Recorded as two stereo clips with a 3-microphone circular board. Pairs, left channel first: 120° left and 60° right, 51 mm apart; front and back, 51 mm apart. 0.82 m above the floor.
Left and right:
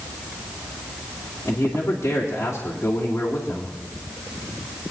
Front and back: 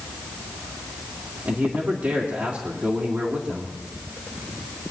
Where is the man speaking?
135° left, 2.5 m.